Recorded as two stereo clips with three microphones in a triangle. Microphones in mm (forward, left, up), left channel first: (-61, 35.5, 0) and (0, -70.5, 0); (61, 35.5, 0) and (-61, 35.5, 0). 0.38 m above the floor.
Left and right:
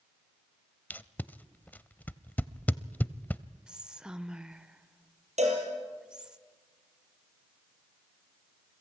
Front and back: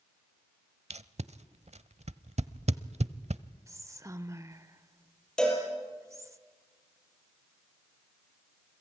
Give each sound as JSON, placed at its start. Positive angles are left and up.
{"t": 0.9, "sound": "tape being pulled", "azimuth_deg": -165, "distance_m": 0.7}
{"t": 3.7, "sound": "whispering", "azimuth_deg": -140, "distance_m": 0.9}
{"t": 5.4, "sound": "a cowbell", "azimuth_deg": -85, "distance_m": 6.0}